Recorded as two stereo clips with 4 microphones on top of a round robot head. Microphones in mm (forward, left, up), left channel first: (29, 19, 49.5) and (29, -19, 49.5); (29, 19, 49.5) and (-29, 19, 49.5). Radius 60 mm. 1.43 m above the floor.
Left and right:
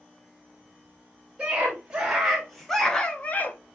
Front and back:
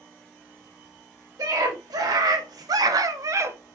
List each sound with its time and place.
1.4 s a scream: 165° right, 2.5 m; by 3.6 s 135° left, 0.9 m